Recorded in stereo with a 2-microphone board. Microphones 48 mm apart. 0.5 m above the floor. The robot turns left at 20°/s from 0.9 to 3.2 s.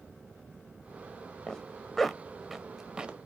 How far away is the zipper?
About 0.5 m.